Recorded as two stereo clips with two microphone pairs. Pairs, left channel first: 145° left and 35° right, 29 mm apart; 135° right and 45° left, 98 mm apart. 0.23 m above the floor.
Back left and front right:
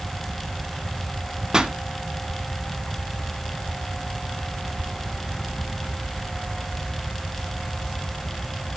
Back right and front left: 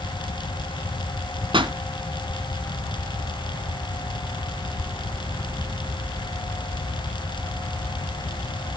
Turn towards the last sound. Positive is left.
turn(degrees=25)